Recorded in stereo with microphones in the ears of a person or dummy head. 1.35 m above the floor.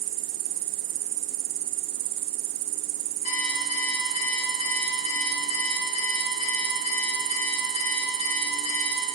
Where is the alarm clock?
45° left (ahead or behind), 4 m.